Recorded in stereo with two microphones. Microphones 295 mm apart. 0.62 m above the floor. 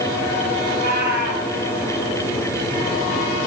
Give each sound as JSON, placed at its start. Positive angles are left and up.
{"t": 0.7, "sound": "a cat meowing", "side_deg": -85, "distance_m": 3.5}